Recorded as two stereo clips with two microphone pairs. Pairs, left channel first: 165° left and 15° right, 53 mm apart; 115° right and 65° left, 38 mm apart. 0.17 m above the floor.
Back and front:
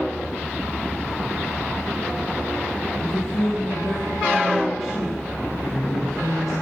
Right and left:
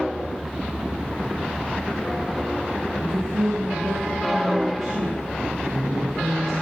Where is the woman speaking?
75° left, 4.5 m.